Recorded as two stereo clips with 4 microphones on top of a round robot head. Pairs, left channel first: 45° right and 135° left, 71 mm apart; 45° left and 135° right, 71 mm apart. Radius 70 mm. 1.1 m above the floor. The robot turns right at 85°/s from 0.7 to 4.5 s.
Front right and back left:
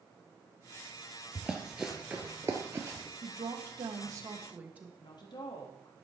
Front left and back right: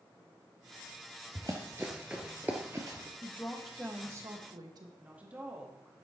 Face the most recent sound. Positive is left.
turn(degrees=-65)